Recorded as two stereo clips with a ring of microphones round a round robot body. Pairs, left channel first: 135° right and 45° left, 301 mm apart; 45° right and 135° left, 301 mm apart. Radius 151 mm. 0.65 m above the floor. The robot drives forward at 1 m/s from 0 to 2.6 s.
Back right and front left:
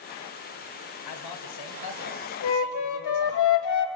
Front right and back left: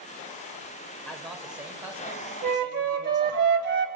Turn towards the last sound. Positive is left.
turn(degrees=-170)